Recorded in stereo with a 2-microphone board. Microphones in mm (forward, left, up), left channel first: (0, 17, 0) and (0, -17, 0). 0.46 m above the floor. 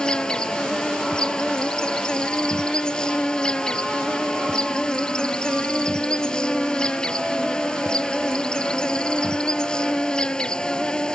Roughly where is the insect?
Left.